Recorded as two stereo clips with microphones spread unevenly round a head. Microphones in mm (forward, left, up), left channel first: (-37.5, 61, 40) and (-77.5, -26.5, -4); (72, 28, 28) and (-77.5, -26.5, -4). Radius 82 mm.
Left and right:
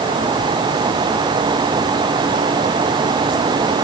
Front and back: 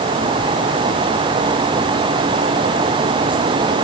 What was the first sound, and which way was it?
Only background noise.